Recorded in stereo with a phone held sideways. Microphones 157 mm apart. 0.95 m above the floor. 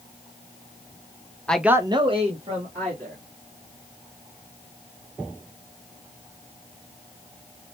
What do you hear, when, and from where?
1.5 s a man speaking: 10° left (ahead or behind), 0.5 m; by 3.2 s 40° right (ahead or behind), 1.9 m